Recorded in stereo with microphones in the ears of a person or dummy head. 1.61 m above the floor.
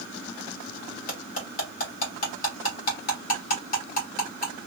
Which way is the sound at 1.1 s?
45° left (ahead or behind).